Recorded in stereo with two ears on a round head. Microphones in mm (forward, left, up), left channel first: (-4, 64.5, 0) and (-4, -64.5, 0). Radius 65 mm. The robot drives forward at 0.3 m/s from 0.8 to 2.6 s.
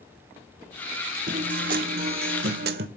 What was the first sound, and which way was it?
A guitar, 55° right (ahead or behind).